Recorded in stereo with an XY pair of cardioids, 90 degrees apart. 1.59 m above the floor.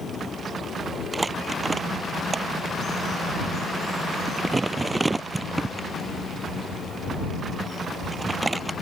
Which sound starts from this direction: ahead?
Crumpling, at 1.1 s.